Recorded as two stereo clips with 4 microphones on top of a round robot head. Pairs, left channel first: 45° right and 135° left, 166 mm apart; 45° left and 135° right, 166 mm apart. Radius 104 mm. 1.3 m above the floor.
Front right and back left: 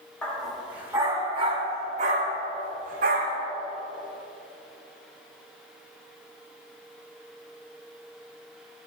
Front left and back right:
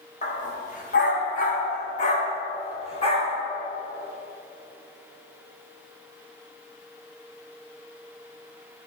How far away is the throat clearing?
I don't hear throat clearing.